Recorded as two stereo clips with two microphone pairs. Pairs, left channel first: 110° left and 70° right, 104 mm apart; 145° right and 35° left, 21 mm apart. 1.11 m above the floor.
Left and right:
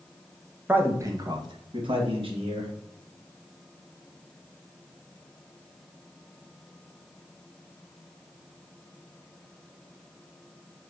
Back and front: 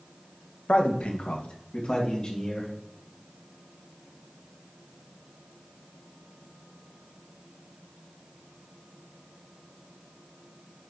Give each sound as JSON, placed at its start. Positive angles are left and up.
{"t": 0.7, "sound": "a man speaking", "azimuth_deg": -145, "distance_m": 0.7}